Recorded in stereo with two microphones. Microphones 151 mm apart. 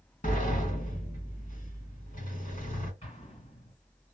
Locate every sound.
0.2 s a sliding door: 60° left (ahead or behind), 1.5 m
3.0 s an explosion: 45° left (ahead or behind), 2 m